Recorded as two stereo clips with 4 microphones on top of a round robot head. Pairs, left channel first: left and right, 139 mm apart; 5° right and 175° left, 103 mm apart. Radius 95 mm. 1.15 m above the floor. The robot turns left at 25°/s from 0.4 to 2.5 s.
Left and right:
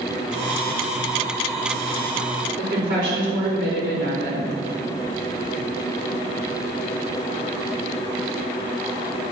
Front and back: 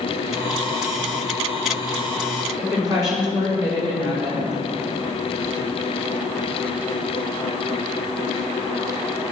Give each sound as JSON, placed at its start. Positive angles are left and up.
{"t": 2.6, "sound": "a woman speaking", "azimuth_deg": -80, "distance_m": 5.0}